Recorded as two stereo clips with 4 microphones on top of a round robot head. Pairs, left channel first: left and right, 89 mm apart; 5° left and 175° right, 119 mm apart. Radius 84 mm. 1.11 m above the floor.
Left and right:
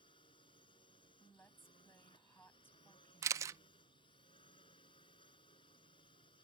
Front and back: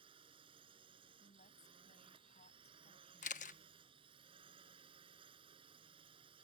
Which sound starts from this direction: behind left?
A drone, at 0.0 s.